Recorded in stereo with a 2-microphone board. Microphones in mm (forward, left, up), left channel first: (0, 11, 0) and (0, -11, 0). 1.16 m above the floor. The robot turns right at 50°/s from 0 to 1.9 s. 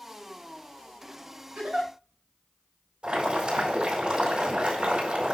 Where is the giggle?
85° right, 5 m; by 1.9 s 65° right (ahead or behind), 5 m.